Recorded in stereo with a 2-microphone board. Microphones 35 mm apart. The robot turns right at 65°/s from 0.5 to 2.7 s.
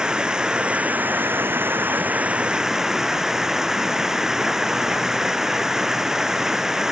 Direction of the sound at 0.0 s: 155° right.